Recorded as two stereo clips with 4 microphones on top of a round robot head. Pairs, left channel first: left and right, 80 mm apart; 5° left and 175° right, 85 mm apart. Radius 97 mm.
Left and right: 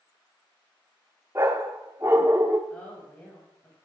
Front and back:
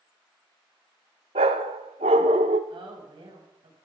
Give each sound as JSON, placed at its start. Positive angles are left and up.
{"t": 1.4, "sound": "a dog barking", "azimuth_deg": -160, "distance_m": 0.5}
{"t": 2.7, "sound": "a woman speaking", "azimuth_deg": 165, "distance_m": 4.5}